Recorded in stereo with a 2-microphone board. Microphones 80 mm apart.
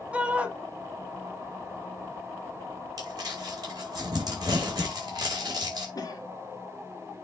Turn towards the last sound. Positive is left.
turn(degrees=50)  # may be behind; listen again after turning